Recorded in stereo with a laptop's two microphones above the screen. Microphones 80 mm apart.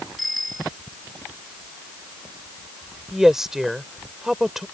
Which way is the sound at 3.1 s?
5° right (ahead or behind).